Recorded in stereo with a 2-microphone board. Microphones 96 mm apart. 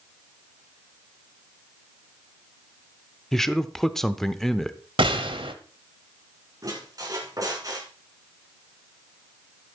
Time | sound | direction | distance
3.3 | a man speaking | 5° left (ahead or behind) | 0.7 m
5.0 | a gunshot | 65° right (ahead or behind) | 1.4 m
6.6 | a squeak | 40° right (ahead or behind) | 4 m